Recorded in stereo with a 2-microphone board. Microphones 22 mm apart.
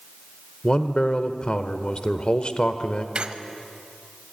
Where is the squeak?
55° right (ahead or behind), 0.8 m.